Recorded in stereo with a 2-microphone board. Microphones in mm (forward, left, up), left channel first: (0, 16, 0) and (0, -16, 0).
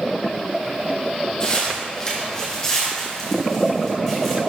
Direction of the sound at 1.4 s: 25° left (ahead or behind).